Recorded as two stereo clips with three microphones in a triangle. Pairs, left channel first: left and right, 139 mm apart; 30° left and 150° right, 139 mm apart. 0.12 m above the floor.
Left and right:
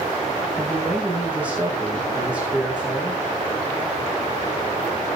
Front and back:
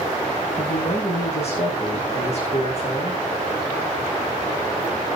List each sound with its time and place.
0.6 s a man speaking: 10° right, 6.5 m